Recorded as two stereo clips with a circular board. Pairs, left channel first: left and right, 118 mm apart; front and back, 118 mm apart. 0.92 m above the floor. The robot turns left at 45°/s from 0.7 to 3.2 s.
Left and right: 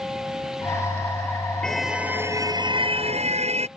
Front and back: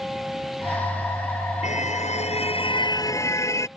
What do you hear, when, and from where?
1.6 s a car horn: 5° left; by 3.7 s 65° right